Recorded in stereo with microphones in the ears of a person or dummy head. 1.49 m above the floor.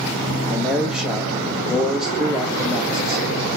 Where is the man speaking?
Centre (ahead or behind), 2.5 m.